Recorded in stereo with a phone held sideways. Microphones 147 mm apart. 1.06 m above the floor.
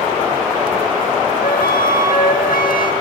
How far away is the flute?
About 1.7 m.